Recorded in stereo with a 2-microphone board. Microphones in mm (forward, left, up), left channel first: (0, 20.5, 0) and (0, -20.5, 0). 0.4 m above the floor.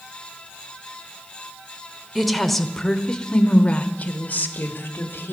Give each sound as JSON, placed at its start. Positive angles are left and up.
{"t": 2.1, "sound": "a woman speaking", "side_deg": 0, "distance_m": 1.4}